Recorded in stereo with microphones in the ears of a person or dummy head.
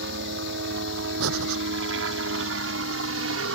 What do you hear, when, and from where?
0.0 s a helicopter: 55° right (ahead or behind); by 3.6 s 65° right (ahead or behind)
1.2 s breathing: 80° right